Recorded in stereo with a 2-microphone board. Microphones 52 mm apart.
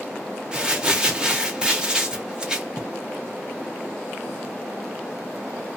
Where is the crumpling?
15° right (ahead or behind), 0.6 m.